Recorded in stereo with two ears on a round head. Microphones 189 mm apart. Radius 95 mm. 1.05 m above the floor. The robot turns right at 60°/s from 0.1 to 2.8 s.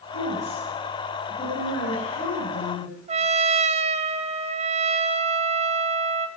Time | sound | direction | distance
0.1 | a woman speaking | 50° right | 7 m
3.1 | a trumpet | 30° right (ahead or behind) | 0.8 m